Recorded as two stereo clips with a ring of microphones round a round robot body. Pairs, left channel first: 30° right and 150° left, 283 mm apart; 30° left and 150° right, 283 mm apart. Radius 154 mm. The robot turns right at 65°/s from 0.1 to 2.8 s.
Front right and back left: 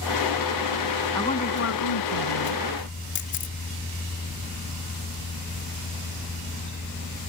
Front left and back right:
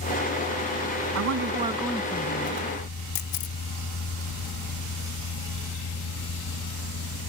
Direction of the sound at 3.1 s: 25° left.